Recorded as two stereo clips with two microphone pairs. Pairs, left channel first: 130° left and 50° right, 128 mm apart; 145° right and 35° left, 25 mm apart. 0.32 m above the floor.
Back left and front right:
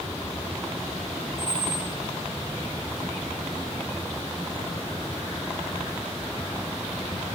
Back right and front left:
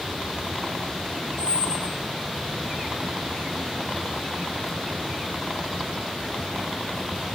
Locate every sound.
1.4 s a squeak: 155° left, 3 m